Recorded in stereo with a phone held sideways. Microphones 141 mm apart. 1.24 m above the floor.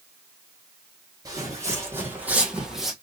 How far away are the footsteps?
About 2 m.